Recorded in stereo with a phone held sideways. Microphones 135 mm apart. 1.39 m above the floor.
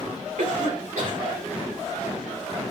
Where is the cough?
85° right, 5.5 m.